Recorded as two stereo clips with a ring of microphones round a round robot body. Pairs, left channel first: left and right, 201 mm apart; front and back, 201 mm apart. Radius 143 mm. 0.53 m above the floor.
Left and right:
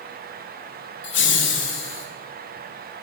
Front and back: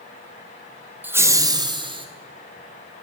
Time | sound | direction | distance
1.0 | laughter | 100° left | 1.7 m